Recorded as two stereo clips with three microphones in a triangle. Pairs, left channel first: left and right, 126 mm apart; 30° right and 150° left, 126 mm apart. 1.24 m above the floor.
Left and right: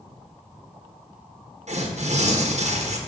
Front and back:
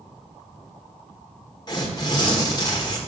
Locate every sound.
1.7 s tearing paper: 85° right, 1.1 m